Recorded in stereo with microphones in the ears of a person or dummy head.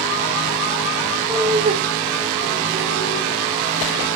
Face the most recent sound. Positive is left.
turn(degrees=-70)  # may be behind; listen again after turning